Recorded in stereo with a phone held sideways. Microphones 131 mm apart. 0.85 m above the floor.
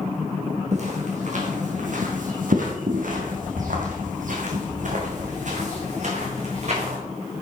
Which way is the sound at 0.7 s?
55° right (ahead or behind).